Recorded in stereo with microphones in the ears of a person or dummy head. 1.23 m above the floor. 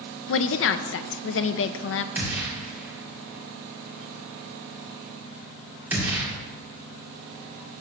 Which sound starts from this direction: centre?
A gunshot, at 2.1 s.